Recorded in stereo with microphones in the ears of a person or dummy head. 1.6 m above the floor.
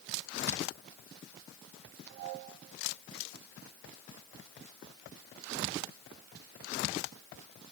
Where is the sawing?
No sawing in this recording.